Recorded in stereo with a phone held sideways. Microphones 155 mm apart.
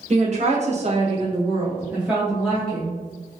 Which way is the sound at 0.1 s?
45° right (ahead or behind).